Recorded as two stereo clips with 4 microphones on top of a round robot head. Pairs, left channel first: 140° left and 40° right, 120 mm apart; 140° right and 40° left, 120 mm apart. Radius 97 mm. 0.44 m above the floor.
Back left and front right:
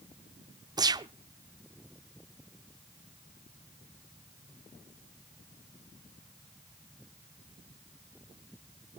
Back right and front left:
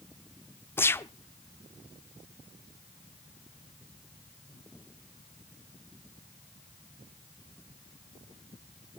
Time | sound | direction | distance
0.8 | a gunshot | 80° right | 0.8 m